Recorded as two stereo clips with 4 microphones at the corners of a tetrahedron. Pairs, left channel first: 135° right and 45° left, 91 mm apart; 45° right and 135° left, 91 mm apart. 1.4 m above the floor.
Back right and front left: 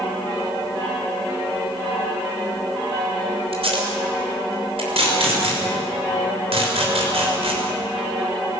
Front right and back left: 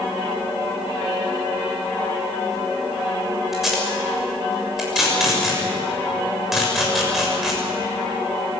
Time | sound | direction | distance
3.5 | tape being pulled | 50° left | 6 m